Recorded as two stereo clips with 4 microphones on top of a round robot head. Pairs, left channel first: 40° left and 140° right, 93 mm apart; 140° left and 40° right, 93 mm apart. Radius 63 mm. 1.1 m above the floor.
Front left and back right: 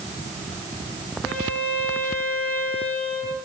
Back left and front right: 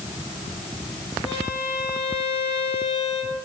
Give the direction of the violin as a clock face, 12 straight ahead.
8 o'clock.